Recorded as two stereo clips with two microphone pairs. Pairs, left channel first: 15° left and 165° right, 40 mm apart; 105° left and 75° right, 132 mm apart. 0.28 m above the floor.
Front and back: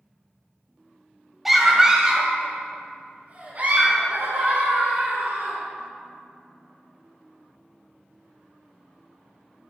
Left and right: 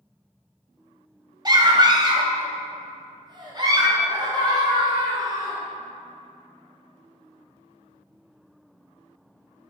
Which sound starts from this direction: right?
A scream, at 1.4 s.